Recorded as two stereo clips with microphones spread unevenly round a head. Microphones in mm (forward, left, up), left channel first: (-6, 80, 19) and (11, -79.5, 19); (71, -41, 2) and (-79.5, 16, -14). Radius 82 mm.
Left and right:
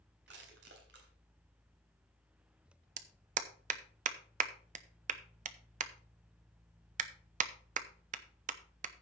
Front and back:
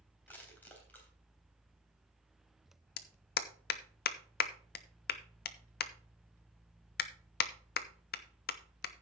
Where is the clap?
40° right, 0.8 m.